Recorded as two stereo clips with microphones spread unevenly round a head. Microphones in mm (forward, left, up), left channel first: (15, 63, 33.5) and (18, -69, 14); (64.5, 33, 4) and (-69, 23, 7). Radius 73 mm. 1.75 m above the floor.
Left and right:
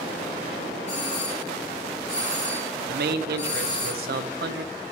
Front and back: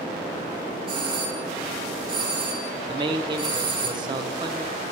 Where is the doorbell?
135° left, 5 m.